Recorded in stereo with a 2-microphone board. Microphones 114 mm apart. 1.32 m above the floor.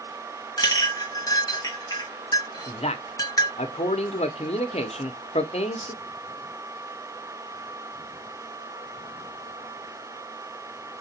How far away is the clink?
About 1.2 m.